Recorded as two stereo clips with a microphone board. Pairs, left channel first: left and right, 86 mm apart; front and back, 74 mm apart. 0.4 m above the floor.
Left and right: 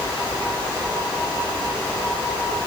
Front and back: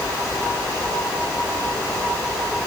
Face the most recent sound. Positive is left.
No sound to turn to.